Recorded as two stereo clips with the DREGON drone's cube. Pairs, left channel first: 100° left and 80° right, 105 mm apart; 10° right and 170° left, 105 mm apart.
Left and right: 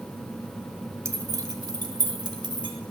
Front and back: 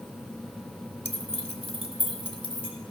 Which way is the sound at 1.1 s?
20° right.